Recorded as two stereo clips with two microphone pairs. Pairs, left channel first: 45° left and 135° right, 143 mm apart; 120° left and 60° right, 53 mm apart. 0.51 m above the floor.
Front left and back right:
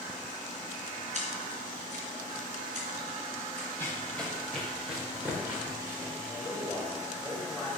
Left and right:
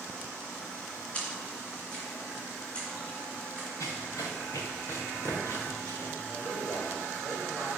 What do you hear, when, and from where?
1.1 s a splash: 175° right, 3 m
3.8 s running footsteps: 120° left, 3.5 m; by 6.1 s 160° left, 4.5 m
6.3 s a man speaking: 130° left, 2.5 m